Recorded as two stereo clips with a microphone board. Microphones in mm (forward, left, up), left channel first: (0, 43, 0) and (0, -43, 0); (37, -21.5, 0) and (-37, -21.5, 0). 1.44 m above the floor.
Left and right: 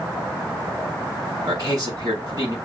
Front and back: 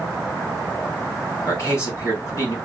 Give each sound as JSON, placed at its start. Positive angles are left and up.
{"t": 1.4, "sound": "a man speaking", "azimuth_deg": -55, "distance_m": 4.0}